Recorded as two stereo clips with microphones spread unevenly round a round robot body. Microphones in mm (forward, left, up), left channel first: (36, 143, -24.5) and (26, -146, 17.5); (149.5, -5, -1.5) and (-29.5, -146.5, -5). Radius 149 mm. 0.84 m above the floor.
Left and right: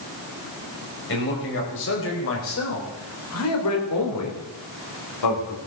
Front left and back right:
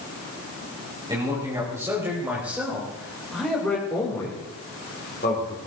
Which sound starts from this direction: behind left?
A man speaking, at 1.1 s.